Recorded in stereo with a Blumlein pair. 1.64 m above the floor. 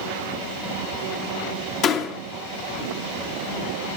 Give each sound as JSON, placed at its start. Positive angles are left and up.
{"t": 1.8, "sound": "a door slam", "azimuth_deg": 35, "distance_m": 2.5}